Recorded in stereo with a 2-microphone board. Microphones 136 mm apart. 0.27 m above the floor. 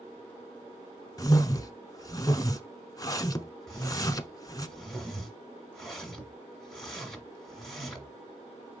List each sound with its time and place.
1.2 s a whoosh: 25° left (ahead or behind), 0.6 m
3.7 s a whoosh: centre (ahead or behind), 1.4 m